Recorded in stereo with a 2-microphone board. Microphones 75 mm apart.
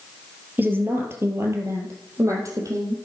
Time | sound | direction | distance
0.6 | a woman speaking | 25° right (ahead or behind) | 2 m